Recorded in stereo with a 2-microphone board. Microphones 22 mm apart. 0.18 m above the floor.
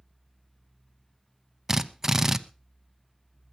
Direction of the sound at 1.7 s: 20° right (ahead or behind).